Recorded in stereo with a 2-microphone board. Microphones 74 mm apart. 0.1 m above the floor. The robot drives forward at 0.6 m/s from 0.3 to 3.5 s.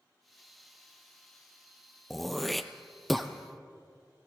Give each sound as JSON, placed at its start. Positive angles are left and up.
{"t": 2.1, "sound": "throat clearing", "side_deg": 0, "distance_m": 0.8}